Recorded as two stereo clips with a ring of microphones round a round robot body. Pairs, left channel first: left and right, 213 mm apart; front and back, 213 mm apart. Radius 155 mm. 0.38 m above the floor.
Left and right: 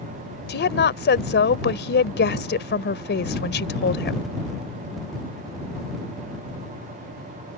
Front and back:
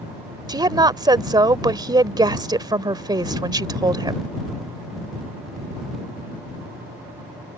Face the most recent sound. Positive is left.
turn(degrees=115)